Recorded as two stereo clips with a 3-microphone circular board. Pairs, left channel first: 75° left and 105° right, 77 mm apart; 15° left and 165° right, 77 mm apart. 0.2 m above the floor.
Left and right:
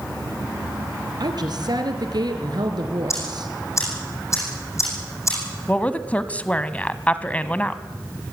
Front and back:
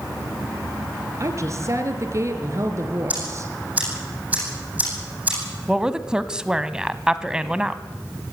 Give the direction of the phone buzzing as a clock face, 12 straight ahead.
No phone buzzing in this recording.